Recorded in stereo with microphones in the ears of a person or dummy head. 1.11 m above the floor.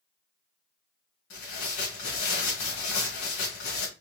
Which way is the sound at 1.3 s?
70° left (ahead or behind).